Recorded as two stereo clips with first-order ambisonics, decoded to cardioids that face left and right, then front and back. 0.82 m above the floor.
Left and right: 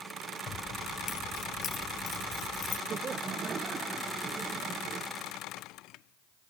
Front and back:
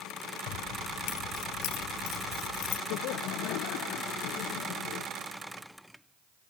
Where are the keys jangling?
30° left.